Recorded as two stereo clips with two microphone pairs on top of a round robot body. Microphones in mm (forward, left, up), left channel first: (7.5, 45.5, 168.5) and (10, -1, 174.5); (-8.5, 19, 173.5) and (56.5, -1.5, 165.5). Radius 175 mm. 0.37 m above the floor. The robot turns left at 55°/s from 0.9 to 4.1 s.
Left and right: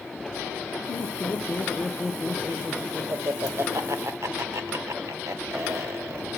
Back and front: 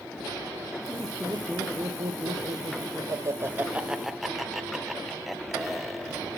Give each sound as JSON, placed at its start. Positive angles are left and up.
{"t": 0.9, "sound": "laughter", "azimuth_deg": 75, "distance_m": 2.0}